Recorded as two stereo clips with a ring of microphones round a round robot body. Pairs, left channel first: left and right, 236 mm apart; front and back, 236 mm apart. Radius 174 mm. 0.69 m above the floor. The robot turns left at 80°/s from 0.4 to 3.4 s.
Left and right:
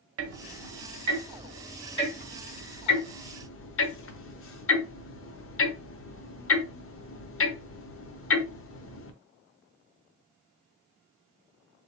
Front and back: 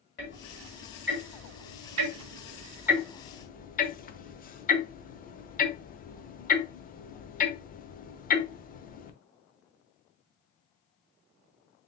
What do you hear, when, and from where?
0.2 s ticking: 65° right, 0.8 m; by 9.1 s 55° left, 0.8 m